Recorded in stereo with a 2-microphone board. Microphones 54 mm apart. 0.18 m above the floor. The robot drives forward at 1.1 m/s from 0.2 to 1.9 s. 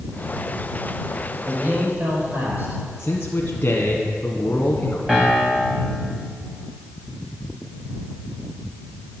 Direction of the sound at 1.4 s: 40° right (ahead or behind).